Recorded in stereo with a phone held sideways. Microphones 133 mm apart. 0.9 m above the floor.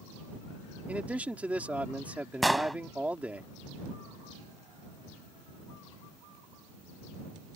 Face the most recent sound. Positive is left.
turn(degrees=0)  # may be behind; listen again after turning